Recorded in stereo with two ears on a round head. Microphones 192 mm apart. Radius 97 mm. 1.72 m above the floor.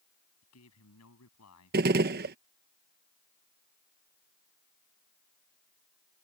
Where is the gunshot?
45° right (ahead or behind).